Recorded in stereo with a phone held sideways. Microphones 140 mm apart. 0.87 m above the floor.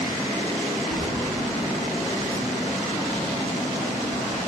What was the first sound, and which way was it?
Keys jangling, 30° right (ahead or behind).